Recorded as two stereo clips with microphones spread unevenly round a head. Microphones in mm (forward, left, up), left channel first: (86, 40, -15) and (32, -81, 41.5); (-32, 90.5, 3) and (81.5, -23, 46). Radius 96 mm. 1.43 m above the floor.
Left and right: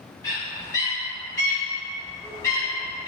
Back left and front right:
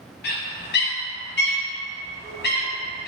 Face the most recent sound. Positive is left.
turn(degrees=135)